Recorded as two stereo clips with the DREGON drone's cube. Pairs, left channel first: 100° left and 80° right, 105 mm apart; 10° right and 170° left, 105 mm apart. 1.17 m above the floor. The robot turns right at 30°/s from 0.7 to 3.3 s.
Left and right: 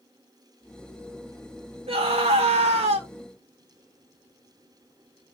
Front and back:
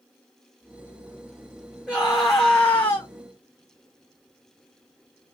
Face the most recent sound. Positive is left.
turn(degrees=-50)